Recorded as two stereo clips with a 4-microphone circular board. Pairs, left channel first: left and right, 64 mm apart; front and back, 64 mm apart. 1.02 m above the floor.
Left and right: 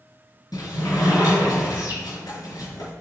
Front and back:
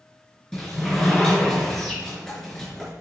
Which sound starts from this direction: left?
A sliding door, at 0.5 s.